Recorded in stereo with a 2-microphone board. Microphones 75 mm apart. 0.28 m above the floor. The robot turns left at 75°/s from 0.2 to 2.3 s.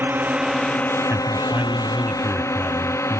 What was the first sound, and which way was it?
A drone, 25° right (ahead or behind).